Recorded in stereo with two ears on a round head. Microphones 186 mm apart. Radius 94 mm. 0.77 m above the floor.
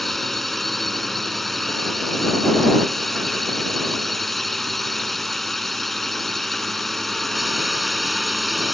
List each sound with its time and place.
0.0 s a drone: centre (ahead or behind)